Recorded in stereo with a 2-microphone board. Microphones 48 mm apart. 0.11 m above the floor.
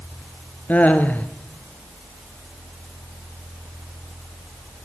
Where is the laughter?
35° left (ahead or behind), 2 m.